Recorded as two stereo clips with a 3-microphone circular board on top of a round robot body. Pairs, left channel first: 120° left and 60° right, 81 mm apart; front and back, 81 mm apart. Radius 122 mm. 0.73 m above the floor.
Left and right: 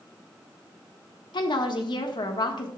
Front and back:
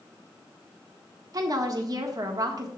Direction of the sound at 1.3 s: 140° left.